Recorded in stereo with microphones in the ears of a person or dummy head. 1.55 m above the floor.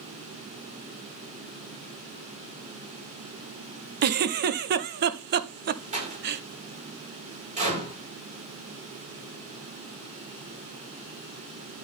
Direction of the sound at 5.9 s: 35° right (ahead or behind).